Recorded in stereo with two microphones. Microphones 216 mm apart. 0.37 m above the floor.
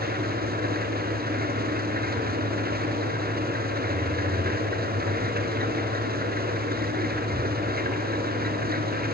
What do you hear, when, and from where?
0.0 s an engine running: 45° right (ahead or behind), 2.5 m